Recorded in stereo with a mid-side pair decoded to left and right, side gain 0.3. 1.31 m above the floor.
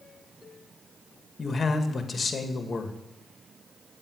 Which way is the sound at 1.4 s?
50° left.